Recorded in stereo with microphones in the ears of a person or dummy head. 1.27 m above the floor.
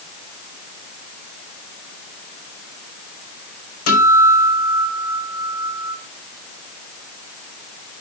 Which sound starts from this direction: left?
A guitar, at 3.9 s.